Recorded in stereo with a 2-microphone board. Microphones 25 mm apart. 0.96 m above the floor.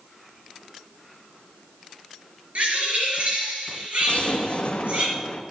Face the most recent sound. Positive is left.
turn(degrees=60)  # may be behind; listen again after turning